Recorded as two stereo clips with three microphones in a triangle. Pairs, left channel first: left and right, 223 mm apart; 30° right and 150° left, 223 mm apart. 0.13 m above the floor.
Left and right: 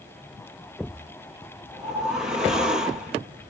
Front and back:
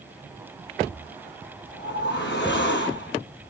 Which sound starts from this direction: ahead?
A whoosh, at 1.7 s.